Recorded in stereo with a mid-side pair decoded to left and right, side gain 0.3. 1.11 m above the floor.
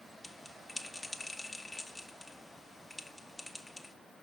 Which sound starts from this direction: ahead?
A bell, at 0.2 s.